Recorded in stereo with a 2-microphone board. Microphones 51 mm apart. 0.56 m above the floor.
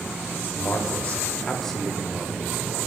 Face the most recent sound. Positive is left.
turn(degrees=-15)  # may be behind; listen again after turning